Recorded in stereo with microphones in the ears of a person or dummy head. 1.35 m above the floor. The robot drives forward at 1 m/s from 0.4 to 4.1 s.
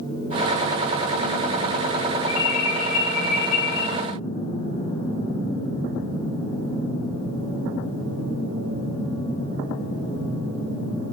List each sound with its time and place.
2.3 s an alarm: 80° left, 9 m; by 3.8 s 70° left (ahead or behind), 9.5 m